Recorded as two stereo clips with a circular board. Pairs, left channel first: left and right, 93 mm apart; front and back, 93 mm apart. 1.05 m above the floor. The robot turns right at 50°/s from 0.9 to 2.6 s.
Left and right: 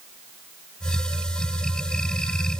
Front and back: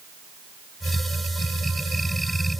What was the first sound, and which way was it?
Only background noise.